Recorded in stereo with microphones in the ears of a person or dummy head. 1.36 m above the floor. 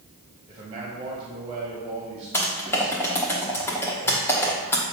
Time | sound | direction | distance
0.5 | a man speaking | 20° right (ahead or behind) | 1.5 m
2.3 | typing on a keyboard | 15° left (ahead or behind) | 1.1 m